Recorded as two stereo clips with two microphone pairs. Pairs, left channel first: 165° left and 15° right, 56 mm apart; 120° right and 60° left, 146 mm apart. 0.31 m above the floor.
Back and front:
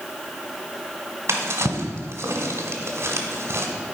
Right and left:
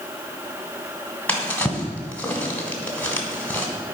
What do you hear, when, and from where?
1.3 s a drawer: 40° right, 1.5 m